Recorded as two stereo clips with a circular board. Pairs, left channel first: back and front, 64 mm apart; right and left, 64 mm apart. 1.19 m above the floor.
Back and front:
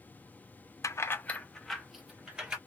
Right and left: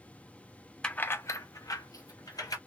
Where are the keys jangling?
165° right, 0.6 m; by 2.6 s 75° right, 1.6 m.